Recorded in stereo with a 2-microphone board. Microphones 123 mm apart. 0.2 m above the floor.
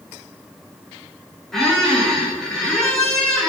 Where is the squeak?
5° left (ahead or behind), 2 m.